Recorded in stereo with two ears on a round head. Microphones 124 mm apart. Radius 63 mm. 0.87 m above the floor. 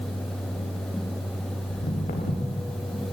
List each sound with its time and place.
1.7 s footsteps: 75° left (ahead or behind), 6 m